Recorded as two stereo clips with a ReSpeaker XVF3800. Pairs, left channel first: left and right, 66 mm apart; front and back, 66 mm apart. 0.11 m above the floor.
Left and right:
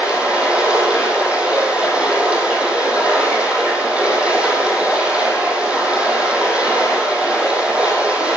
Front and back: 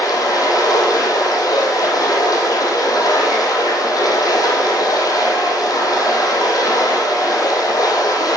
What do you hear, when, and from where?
0.0 s running water: 15° right, 4 m